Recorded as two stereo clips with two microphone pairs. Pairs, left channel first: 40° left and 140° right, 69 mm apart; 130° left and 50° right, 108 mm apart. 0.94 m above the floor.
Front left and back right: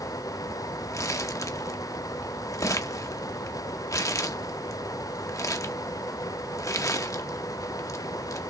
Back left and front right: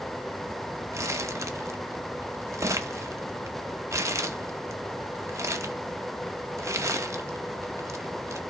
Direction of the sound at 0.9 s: 10° left.